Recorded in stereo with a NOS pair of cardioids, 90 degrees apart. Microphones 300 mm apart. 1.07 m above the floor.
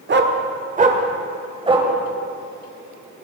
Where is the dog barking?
35° right, 1.5 m; by 1.9 s 15° right, 2.5 m.